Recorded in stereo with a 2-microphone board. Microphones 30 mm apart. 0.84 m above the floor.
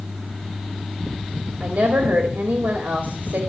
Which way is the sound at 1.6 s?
70° right (ahead or behind).